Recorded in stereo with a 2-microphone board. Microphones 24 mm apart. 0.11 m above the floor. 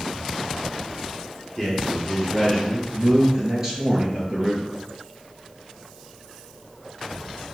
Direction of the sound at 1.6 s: Centre (ahead or behind).